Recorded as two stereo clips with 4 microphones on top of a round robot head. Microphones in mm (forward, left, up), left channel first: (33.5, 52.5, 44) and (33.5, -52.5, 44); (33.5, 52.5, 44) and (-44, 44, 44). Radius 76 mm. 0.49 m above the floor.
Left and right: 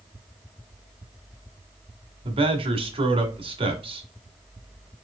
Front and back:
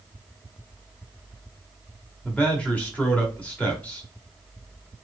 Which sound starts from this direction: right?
A man speaking, at 2.2 s.